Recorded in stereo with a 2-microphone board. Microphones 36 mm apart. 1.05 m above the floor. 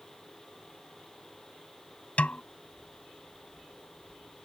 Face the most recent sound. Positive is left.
turn(degrees=40)  # may be behind; listen again after turning